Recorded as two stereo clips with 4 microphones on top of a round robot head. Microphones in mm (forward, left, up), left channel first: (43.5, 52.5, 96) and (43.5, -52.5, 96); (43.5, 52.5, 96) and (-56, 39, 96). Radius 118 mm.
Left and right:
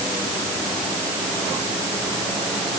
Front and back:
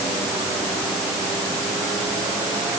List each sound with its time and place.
Only background noise.